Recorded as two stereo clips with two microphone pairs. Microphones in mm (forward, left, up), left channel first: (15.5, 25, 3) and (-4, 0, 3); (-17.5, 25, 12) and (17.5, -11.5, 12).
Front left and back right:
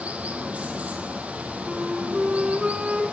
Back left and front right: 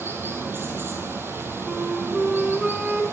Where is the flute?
120° right, 1.2 m.